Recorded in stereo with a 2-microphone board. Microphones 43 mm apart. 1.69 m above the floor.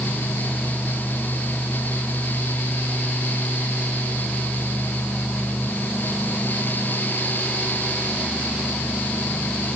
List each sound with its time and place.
Only background noise.